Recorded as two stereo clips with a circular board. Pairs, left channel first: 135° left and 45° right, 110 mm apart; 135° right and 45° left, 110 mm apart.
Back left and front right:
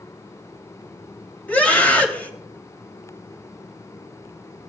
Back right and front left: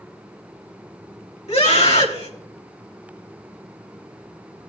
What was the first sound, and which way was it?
A scream, 150° right.